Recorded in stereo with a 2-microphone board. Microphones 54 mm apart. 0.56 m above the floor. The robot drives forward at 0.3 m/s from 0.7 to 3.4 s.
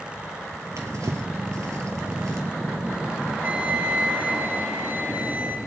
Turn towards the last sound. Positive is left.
turn(degrees=-30)  # may be behind; listen again after turning